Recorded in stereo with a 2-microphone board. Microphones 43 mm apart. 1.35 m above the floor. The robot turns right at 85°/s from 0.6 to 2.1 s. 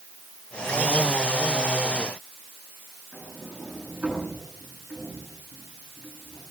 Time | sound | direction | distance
3.1 | a sliding door | 30° right (ahead or behind) | 9.5 m